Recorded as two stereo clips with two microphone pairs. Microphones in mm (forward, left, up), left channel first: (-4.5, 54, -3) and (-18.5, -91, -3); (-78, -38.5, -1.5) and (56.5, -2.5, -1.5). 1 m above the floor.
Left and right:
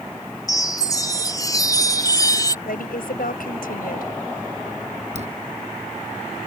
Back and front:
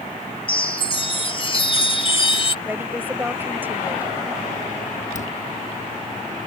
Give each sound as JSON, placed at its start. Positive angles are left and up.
{"t": 0.5, "sound": "a chime", "azimuth_deg": 150}
{"t": 2.6, "sound": "a woman speaking", "azimuth_deg": 90}
{"t": 5.2, "sound": "a dropped coin", "azimuth_deg": -135}